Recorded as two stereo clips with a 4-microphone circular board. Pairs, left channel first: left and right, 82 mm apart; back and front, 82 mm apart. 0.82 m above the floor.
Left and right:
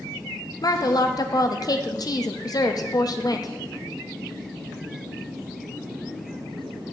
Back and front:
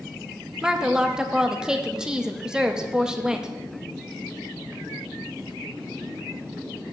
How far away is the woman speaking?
About 0.6 m.